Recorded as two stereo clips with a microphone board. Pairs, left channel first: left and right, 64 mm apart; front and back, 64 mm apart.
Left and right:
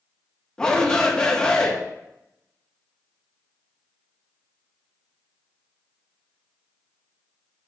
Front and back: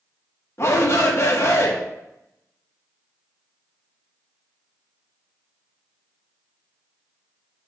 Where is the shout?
20° left, 0.6 m.